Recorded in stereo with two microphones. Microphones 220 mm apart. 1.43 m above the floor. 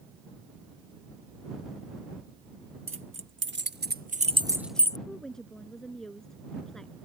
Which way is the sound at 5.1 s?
Centre (ahead or behind).